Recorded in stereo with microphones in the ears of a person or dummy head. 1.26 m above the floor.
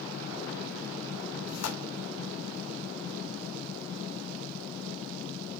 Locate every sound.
1.5 s tearing paper: 70° left (ahead or behind), 3 m